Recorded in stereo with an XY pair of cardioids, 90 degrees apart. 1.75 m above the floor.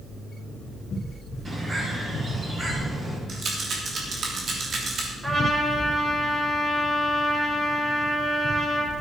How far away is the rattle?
About 3 m.